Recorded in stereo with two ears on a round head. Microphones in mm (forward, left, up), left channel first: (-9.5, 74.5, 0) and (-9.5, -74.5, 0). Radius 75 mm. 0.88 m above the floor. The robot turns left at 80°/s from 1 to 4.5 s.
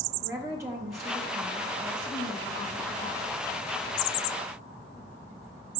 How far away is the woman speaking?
About 0.7 m.